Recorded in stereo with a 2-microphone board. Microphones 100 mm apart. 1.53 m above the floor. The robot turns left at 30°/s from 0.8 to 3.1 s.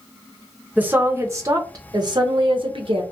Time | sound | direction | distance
0.8 | a woman speaking | 20° right | 0.6 m